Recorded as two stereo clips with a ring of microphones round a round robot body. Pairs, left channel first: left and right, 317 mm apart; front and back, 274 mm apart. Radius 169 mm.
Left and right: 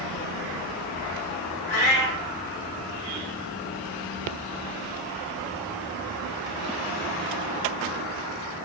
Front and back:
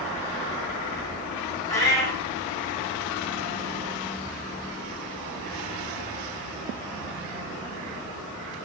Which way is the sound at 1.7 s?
80° left.